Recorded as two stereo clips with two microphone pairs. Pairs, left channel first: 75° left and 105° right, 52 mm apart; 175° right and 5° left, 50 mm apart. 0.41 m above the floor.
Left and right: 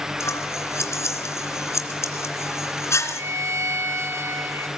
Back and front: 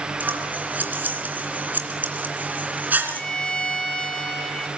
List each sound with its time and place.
0.2 s scissors: 55° left, 2.5 m
3.1 s a violin: 105° right, 4 m